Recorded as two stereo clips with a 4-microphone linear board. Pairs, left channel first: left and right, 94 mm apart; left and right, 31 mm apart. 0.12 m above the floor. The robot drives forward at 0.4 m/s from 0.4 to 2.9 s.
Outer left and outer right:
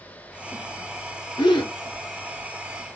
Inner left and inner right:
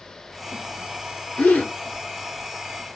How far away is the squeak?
I don't hear a squeak.